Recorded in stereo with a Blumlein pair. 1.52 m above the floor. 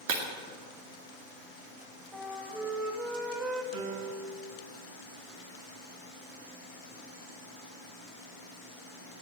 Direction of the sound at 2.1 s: 15° right.